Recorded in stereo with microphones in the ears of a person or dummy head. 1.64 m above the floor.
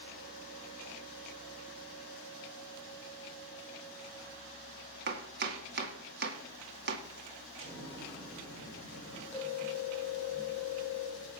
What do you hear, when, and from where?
5.1 s chopping: 60° right (ahead or behind), 2 m
7.6 s an explosion: 30° right (ahead or behind), 7.5 m
9.3 s a phone ringing: 15° left (ahead or behind), 7 m